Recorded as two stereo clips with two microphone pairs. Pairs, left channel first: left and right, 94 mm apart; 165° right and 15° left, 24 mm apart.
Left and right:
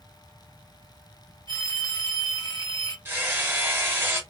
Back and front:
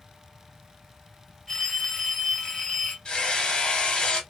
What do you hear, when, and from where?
1.5 s a phone ringing: 130° left, 2 m
3.0 s hammering: 145° right, 1.1 m